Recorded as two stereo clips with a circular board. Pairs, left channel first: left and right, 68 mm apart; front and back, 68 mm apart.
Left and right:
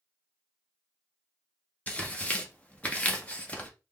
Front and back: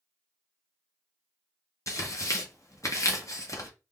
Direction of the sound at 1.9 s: 25° left.